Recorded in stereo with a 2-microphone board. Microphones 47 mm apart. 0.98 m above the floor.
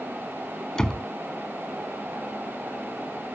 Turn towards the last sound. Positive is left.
turn(degrees=10)  # may be behind; listen again after turning